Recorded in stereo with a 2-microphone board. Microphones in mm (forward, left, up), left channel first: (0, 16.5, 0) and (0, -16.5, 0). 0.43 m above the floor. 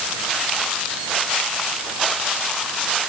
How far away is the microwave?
I don't hear a microwave.